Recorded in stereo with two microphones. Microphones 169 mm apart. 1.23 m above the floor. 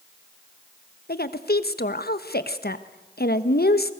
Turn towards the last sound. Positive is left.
turn(degrees=70)  # may be behind; listen again after turning